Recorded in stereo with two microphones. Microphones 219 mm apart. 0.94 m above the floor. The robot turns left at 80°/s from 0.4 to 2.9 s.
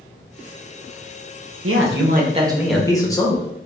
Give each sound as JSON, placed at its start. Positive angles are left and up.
{"t": 1.6, "sound": "a man speaking", "azimuth_deg": -95, "distance_m": 0.7}